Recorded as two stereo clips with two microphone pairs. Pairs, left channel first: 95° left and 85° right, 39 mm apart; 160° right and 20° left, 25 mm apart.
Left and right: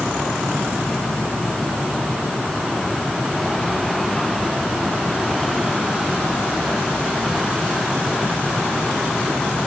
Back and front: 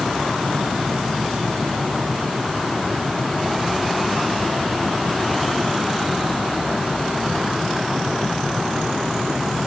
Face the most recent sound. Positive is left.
No sound to turn to.